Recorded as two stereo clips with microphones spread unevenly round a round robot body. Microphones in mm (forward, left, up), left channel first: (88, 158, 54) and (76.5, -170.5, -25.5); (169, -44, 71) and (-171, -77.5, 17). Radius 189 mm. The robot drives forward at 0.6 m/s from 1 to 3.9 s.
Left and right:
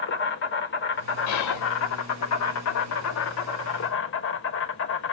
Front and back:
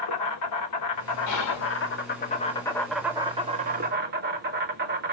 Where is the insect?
30° left, 1.4 m; by 5.1 s 145° left, 1.3 m.